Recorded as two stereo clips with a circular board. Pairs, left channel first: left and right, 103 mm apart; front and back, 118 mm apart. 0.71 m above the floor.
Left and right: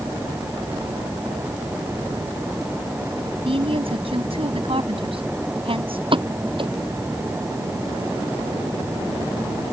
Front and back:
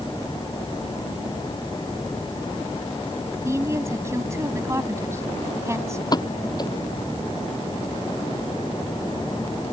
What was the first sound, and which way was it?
A woman speaking, 115° right.